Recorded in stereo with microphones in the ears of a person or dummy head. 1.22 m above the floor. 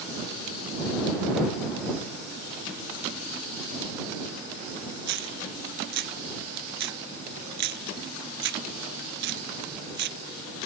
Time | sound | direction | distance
5.1 | a dropped coin | 65° right (ahead or behind) | ?